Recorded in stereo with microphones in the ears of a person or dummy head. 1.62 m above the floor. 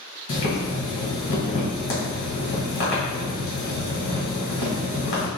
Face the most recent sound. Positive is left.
turn(degrees=45)  # may be behind; listen again after turning